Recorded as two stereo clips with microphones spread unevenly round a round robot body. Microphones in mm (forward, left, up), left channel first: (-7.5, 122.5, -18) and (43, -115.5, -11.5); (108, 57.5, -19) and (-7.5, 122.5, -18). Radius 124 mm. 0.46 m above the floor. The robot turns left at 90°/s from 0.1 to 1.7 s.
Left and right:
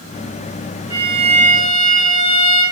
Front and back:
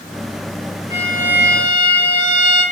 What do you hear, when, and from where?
0.9 s a violin: 10° right, 1.2 m; by 2.6 s 80° right, 1.2 m